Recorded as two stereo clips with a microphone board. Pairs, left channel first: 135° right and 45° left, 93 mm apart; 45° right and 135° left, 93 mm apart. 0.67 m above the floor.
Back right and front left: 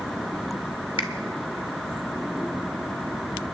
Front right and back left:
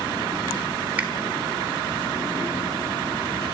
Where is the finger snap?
155° right, 1.3 m.